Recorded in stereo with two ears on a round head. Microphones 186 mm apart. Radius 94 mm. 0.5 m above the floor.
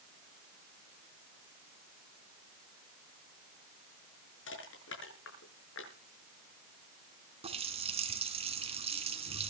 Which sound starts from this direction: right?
A running tap, at 7.4 s.